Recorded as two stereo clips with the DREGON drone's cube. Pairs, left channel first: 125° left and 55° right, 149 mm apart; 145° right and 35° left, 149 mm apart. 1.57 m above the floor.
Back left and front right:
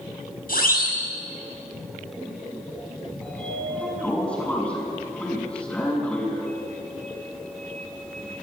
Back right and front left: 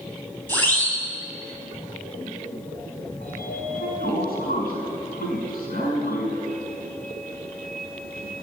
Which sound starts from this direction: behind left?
A siren, at 0.5 s.